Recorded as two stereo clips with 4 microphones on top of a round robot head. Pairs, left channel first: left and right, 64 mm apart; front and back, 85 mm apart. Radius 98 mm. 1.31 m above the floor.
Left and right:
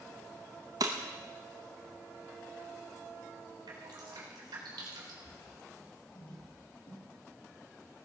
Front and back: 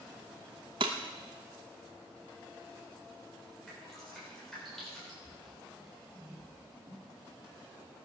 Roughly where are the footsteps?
Left.